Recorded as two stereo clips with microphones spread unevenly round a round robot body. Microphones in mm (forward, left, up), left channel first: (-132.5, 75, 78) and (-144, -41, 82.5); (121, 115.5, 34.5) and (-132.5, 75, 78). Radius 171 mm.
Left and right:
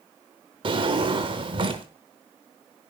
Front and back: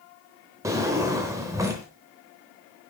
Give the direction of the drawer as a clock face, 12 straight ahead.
3 o'clock.